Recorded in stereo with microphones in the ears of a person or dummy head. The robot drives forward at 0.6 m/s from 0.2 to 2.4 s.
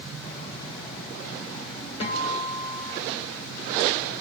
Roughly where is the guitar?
Left.